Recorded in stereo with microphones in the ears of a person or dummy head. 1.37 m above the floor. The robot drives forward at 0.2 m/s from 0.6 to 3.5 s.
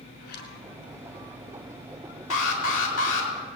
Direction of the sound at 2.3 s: 75° left (ahead or behind).